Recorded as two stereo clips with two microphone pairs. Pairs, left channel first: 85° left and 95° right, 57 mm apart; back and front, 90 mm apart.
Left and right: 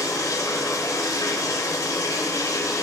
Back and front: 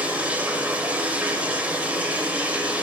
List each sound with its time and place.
0.0 s running water: 75° left, 0.9 m